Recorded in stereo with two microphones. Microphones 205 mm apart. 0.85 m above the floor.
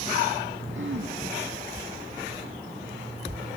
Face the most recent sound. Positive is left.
turn(degrees=-75)  # may be behind; listen again after turning